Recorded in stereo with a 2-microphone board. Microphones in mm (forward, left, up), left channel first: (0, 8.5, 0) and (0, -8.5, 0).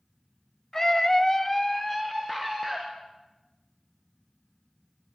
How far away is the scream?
About 1.3 m.